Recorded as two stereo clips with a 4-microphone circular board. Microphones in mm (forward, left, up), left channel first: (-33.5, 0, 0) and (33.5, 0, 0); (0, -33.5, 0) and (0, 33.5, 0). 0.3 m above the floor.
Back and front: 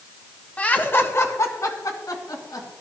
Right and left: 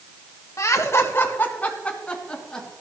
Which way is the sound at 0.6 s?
115° right.